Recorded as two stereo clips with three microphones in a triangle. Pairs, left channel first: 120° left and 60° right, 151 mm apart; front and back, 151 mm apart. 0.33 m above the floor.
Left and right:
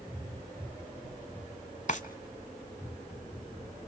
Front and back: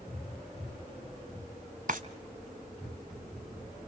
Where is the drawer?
155° left, 1.2 m.